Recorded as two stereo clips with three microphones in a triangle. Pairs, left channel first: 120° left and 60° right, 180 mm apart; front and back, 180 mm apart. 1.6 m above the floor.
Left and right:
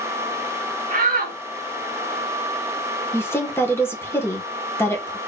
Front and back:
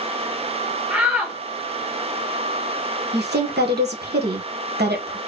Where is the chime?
No chime in this recording.